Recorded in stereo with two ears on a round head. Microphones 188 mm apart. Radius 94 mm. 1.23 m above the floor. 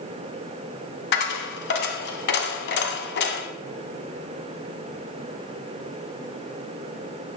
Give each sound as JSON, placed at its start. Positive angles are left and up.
{"t": 1.1, "sound": "a dropped coin", "side_deg": 50, "distance_m": 1.7}